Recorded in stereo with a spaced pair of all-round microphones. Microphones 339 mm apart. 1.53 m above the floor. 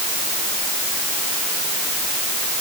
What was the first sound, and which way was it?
Only background noise.